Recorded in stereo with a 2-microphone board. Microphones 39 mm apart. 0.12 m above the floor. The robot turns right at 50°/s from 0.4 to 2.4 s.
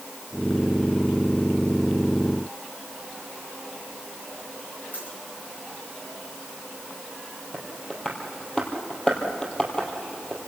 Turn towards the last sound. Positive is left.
turn(degrees=20)  # may be behind; listen again after turning